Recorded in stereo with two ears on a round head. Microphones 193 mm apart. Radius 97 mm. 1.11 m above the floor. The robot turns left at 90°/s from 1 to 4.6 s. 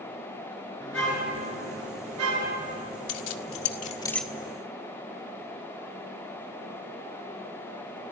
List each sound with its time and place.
0.8 s a car horn: 5° left, 8.5 m; by 2.8 s 160° right, 8.5 m
3.1 s keys jangling: 75° left (ahead or behind), 1.6 m; by 4.3 s 5° right (ahead or behind), 1.6 m